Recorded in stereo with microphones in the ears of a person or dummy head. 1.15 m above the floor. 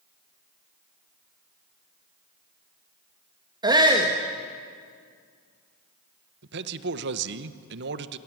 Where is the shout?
20° right (ahead or behind), 1.8 m.